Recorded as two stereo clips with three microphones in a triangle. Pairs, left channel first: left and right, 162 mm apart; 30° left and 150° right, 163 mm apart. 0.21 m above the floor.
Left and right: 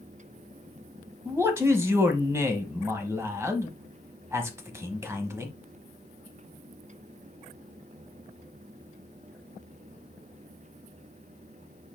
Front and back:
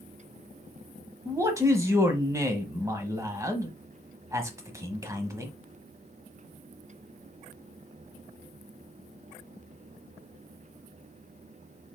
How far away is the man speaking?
About 1.0 m.